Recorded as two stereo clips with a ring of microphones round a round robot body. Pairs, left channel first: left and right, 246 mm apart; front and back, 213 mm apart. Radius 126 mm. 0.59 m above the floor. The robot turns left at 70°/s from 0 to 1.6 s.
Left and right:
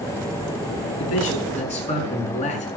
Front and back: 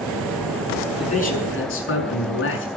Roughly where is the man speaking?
Left.